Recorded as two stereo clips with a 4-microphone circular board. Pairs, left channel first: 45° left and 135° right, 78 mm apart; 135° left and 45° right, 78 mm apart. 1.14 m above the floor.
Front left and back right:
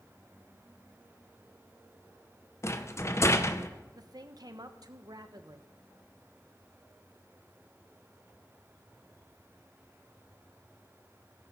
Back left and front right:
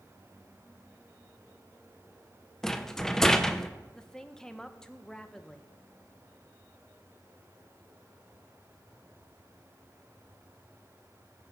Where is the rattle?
55° left, 0.8 m.